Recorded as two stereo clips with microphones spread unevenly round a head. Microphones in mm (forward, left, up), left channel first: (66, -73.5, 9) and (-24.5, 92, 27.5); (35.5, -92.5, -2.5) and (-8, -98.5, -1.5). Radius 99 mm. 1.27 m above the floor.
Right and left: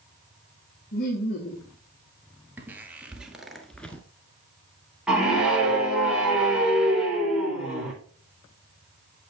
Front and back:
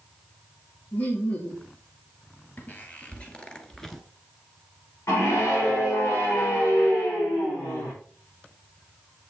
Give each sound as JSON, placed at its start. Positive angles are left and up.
{"t": 0.9, "sound": "laughter", "azimuth_deg": -25, "distance_m": 3.0}
{"t": 2.6, "sound": "footsteps", "azimuth_deg": 50, "distance_m": 1.7}
{"t": 5.1, "sound": "a scream", "azimuth_deg": 35, "distance_m": 5.0}